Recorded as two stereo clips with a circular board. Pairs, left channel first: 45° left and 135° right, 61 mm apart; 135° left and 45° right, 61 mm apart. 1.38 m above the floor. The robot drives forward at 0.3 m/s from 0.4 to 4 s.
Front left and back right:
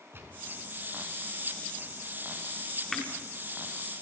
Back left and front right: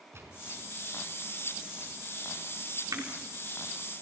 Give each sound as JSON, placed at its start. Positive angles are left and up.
{"t": 0.1, "sound": "a gunshot", "azimuth_deg": -85, "distance_m": 5.0}
{"t": 2.9, "sound": "crushing", "azimuth_deg": -40, "distance_m": 4.5}